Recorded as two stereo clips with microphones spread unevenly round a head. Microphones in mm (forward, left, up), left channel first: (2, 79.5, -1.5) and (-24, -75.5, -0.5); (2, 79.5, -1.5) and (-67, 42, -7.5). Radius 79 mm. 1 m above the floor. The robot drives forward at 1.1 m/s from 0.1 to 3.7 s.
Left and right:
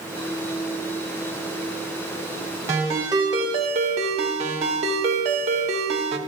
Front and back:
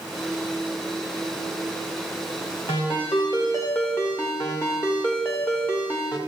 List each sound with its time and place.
2.7 s a ringtone: 25° right, 2.5 m; by 6.2 s 45° right, 1.4 m